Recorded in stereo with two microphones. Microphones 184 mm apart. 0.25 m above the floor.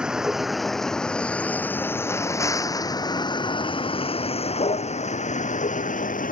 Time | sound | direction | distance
0.0 | a vehicle | 5° right (ahead or behind) | ?